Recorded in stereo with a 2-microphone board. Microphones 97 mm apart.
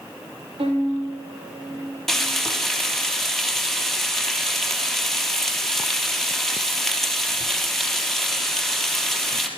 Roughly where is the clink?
No clink in this recording.